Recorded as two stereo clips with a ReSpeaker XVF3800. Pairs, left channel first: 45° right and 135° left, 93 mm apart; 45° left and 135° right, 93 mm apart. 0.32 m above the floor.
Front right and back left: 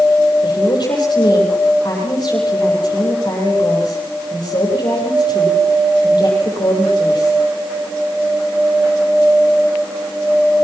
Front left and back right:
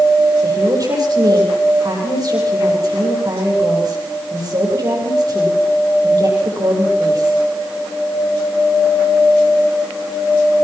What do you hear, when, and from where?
0.4 s a woman speaking: 85° right, 10 m